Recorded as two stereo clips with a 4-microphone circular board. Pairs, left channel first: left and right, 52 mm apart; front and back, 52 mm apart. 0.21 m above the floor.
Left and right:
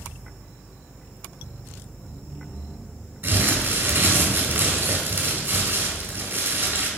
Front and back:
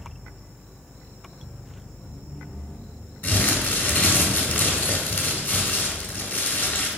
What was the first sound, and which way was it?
Crumpling, 50° right.